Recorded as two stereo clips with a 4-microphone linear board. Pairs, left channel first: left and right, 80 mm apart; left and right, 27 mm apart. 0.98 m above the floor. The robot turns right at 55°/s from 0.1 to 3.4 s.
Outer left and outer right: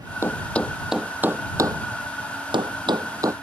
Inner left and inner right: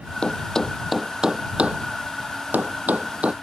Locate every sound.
0.2 s a thud: 35° left (ahead or behind); by 3.3 s 40° right (ahead or behind)